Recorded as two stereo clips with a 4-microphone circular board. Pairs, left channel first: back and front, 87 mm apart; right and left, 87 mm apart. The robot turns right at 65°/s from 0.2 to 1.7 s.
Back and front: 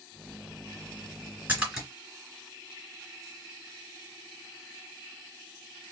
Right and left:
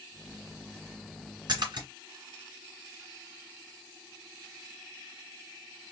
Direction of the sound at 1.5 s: 65° left.